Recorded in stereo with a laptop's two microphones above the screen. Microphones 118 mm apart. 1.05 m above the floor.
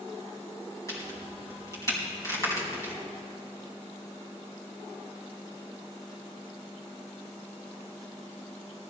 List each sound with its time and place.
0.9 s a crack: 30° left (ahead or behind), 3.5 m